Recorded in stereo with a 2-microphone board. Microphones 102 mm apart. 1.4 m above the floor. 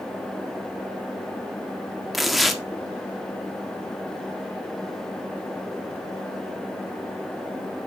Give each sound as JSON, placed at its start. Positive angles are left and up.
{"t": 2.1, "sound": "tearing paper", "side_deg": 0, "distance_m": 1.7}